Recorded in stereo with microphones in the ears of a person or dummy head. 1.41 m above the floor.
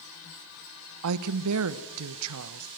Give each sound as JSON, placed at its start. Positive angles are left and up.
{"t": 1.0, "sound": "a woman speaking", "side_deg": -75, "distance_m": 1.1}